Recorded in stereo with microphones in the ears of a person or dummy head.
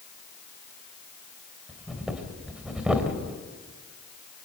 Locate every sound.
1.7 s breathing: 5° right (ahead or behind), 3 m